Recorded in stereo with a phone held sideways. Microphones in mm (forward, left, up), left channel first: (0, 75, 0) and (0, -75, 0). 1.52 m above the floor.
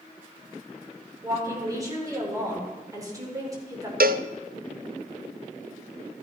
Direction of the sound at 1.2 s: 25° right (ahead or behind).